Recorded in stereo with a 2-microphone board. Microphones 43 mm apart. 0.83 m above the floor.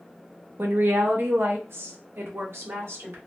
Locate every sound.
0.6 s a woman speaking: 50° right (ahead or behind), 0.6 m; by 3.2 s 75° right (ahead or behind), 1.8 m